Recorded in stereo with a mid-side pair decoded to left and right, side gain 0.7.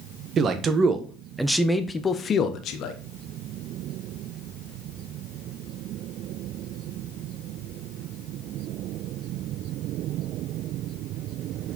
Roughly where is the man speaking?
Ahead right.